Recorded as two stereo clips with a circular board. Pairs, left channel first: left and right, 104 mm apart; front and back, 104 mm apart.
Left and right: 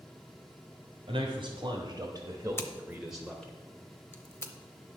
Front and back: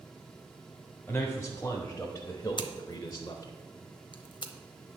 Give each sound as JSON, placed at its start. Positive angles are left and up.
{"t": 1.1, "sound": "a man speaking", "azimuth_deg": -80, "distance_m": 1.5}
{"t": 2.6, "sound": "scissors", "azimuth_deg": 25, "distance_m": 0.7}